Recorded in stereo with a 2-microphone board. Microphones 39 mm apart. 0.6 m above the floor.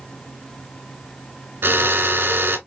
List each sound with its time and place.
1.6 s a drill: 70° right (ahead or behind), 2 m